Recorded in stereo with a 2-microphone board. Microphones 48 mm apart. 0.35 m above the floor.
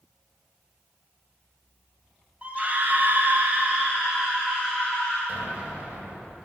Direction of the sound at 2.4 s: 30° right (ahead or behind).